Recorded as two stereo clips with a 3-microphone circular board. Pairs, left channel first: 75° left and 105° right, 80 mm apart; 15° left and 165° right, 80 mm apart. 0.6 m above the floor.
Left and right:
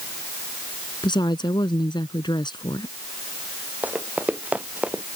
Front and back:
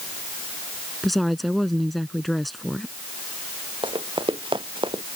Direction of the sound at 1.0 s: 105° left.